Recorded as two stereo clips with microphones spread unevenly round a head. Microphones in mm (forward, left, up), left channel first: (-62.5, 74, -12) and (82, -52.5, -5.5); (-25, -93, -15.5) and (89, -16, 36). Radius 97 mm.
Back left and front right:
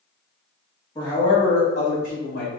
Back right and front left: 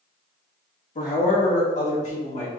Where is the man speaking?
150° right, 1.9 m; by 2.5 s 175° left, 1.6 m.